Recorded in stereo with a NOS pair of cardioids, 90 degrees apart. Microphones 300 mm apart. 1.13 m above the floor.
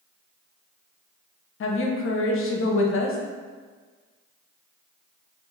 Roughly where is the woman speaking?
Ahead left.